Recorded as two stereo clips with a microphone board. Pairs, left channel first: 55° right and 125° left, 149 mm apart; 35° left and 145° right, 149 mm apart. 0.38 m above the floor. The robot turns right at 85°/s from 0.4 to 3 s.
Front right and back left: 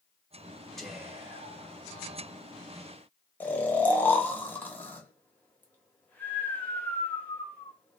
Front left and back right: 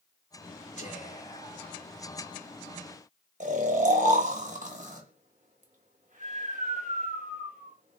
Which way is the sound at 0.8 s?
30° left.